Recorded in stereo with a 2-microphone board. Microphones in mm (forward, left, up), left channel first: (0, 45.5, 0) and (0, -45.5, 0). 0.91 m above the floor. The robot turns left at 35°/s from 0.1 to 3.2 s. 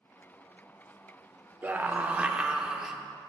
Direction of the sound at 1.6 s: 20° right (ahead or behind).